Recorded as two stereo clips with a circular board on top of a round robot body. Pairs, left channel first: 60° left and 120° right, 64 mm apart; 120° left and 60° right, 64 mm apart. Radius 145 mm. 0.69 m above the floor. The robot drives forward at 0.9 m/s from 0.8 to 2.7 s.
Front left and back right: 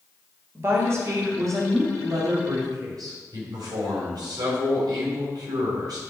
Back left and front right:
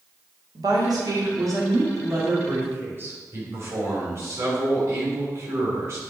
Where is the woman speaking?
70° right, 2.5 m; by 3.1 s 115° right, 2.5 m.